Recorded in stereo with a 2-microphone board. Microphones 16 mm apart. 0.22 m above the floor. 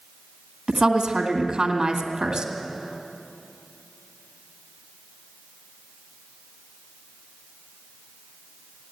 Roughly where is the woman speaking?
Right.